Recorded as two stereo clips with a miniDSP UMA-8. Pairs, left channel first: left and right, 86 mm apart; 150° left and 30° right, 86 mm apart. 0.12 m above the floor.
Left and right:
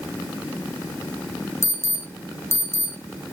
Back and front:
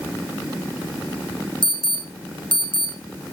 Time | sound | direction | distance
1.6 | an alarm | 150° left | 5 m